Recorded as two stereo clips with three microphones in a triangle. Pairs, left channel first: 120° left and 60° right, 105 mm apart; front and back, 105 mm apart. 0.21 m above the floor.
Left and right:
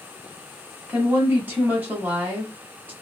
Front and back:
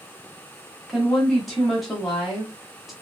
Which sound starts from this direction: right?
A woman speaking, at 0.9 s.